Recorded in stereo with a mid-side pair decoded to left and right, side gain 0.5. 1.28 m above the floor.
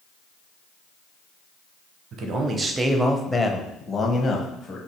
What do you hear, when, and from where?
2.1 s a man speaking: 60° right, 0.6 m; by 4.8 s 40° left, 1.3 m